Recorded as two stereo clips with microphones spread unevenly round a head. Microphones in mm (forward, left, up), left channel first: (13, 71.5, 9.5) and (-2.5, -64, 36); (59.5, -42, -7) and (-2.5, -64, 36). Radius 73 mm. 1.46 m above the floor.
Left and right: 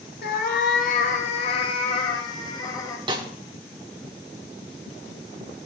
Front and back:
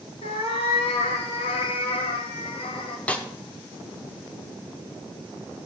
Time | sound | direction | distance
0.2 | a cat meowing | 65° left | 1.6 m
3.1 | a snare drum | 90° right | 1.2 m